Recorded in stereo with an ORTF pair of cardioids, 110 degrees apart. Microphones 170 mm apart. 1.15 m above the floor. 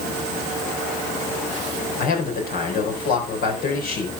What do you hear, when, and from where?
2.0 s a man speaking: 60° left, 4 m